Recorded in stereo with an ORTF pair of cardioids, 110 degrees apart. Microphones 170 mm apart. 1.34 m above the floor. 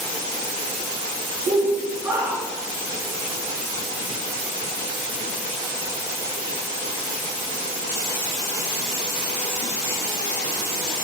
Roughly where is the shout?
Ahead right.